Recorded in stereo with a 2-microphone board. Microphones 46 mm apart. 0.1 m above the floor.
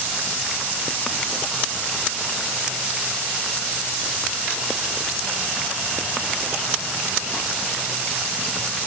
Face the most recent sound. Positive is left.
No sound to turn to.